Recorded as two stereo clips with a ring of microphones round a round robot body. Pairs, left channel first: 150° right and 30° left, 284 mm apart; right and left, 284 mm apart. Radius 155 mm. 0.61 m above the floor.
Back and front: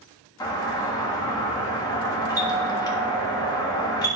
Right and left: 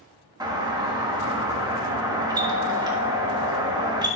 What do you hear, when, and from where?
0.4 s a doorbell: 150° left, 1.5 m